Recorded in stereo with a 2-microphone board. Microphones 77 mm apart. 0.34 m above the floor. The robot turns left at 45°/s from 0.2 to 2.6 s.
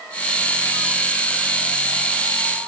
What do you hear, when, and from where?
Only background noise.